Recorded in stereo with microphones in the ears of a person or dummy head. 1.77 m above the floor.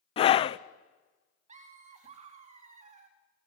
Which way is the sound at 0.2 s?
35° left (ahead or behind).